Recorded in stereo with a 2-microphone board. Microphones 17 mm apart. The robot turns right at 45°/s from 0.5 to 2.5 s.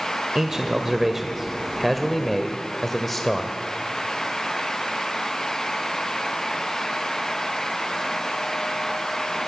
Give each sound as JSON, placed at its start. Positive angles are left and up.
{"t": 0.3, "sound": "a man speaking", "side_deg": -20, "distance_m": 1.6}